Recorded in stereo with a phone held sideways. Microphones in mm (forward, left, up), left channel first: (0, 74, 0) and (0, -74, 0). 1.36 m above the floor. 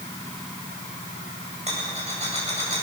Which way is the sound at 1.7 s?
45° right (ahead or behind).